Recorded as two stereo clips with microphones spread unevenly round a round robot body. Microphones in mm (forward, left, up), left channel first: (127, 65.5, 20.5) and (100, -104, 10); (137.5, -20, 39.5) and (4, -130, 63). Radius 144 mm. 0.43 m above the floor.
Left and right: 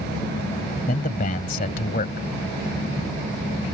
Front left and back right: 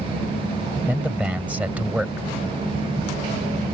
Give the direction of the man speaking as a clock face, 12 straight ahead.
8 o'clock.